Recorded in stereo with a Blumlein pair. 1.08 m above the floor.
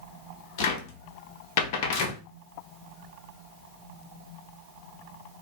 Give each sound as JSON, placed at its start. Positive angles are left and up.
{"t": 0.6, "sound": "a cupboard door", "azimuth_deg": 45, "distance_m": 0.6}